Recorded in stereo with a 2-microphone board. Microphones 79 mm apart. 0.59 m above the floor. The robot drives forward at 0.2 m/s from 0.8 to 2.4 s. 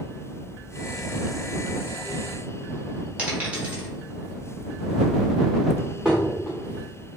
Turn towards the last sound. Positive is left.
turn(degrees=-5)  # may be behind; listen again after turning